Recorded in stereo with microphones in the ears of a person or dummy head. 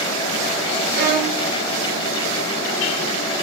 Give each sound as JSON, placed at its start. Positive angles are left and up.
{"t": 0.9, "sound": "a violin", "side_deg": -65, "distance_m": 4.5}